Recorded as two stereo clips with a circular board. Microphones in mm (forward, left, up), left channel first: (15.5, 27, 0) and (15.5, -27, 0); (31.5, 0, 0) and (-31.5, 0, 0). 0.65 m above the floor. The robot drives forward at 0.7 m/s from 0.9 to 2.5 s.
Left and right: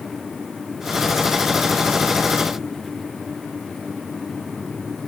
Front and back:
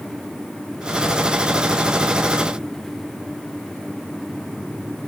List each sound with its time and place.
Only background noise.